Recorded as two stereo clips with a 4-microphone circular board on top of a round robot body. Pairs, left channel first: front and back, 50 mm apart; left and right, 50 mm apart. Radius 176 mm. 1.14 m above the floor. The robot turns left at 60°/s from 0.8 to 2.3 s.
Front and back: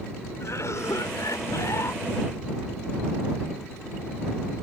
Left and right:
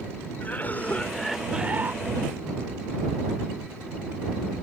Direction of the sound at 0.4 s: 30° left.